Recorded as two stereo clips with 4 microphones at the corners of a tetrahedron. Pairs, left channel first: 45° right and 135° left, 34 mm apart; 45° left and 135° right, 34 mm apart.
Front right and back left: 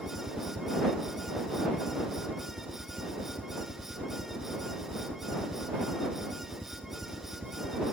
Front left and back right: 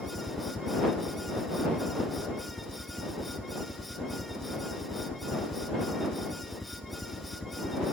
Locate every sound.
0.0 s a helicopter: 95° left